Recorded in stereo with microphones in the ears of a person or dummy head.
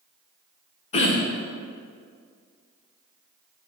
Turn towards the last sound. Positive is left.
turn(degrees=40)  # may be behind; listen again after turning